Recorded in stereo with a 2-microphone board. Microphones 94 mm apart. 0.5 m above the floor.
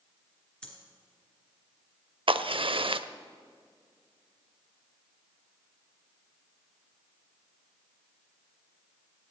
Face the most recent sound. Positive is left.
turn(degrees=-65)  # may be behind; listen again after turning